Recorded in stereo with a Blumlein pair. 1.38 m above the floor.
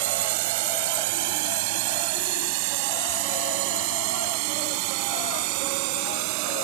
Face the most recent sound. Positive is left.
turn(degrees=-45)